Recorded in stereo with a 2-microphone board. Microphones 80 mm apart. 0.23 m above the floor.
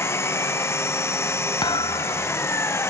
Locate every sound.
0.0 s an engine running: 35° left (ahead or behind)
1.6 s a thud: 70° left (ahead or behind)